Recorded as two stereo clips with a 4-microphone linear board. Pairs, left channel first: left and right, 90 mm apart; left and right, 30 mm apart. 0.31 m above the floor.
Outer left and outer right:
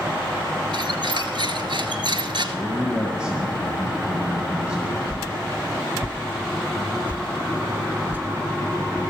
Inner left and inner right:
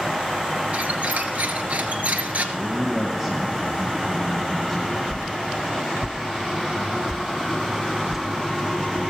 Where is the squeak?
60° right (ahead or behind), 1.1 m.